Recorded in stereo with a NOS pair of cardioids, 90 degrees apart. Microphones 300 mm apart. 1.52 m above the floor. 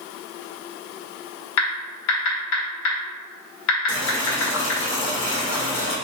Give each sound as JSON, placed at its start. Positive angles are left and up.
{"t": 1.6, "sound": "typing on a keyboard", "azimuth_deg": 65, "distance_m": 1.4}
{"t": 3.9, "sound": "boiling", "azimuth_deg": 40, "distance_m": 1.2}